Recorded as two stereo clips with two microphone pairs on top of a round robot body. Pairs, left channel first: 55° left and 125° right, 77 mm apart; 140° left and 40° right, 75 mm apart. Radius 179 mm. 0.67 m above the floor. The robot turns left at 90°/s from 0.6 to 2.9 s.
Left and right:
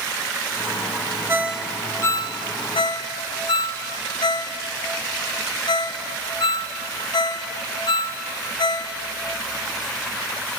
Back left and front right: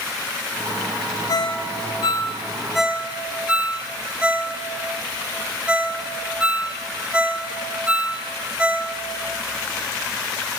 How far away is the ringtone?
About 1.0 m.